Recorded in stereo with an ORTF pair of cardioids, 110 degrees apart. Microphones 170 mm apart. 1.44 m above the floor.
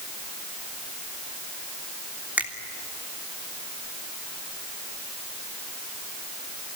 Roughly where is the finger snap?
Ahead.